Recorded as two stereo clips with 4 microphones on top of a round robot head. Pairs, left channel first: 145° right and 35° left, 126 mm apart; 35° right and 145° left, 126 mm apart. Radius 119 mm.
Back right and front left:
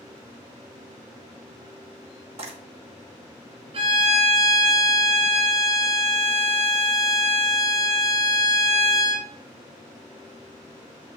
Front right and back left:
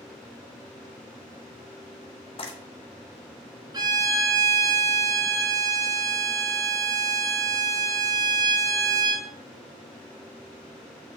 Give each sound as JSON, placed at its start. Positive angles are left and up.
{"t": 2.4, "sound": "frying", "azimuth_deg": 5, "distance_m": 1.6}
{"t": 3.7, "sound": "a violin", "azimuth_deg": 85, "distance_m": 1.5}